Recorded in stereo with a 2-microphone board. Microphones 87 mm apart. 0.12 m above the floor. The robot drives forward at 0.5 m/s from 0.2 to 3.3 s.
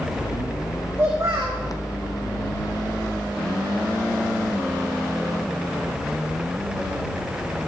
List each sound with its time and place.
1.0 s a child speaking: 30° right (ahead or behind), 5 m; by 1.6 s 25° right (ahead or behind), 5 m